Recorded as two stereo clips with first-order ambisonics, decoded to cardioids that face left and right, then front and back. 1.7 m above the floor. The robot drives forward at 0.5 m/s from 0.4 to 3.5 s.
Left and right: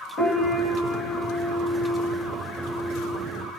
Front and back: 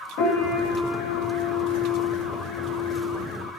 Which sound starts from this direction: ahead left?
A piano, at 0.2 s.